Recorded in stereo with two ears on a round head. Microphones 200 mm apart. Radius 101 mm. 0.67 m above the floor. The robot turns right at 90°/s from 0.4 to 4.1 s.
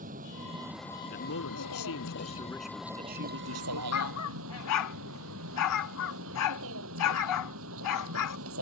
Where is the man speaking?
40° left; by 3.8 s 75° right.